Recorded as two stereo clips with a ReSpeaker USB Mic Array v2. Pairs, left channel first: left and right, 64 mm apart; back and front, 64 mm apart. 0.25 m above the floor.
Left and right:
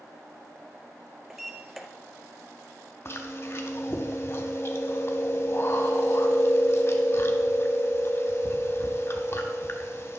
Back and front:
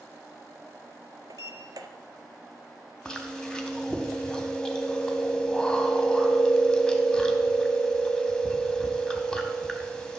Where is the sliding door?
5° right, 0.6 m.